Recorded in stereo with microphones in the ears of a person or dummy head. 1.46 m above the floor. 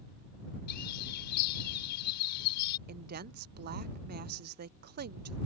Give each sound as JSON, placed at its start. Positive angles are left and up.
{"t": 0.7, "sound": "a bird", "side_deg": 55}
{"t": 2.9, "sound": "a woman speaking", "side_deg": -45}